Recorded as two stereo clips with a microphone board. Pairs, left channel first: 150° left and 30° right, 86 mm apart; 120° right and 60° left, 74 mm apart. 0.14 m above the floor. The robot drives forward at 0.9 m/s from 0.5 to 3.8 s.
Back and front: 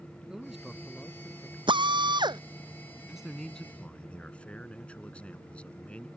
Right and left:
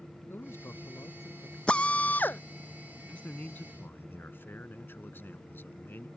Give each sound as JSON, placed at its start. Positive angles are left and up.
{"t": 0.3, "sound": "a man speaking", "azimuth_deg": -110}
{"t": 1.7, "sound": "a drill", "azimuth_deg": -45}
{"t": 3.1, "sound": "a man speaking", "azimuth_deg": -95}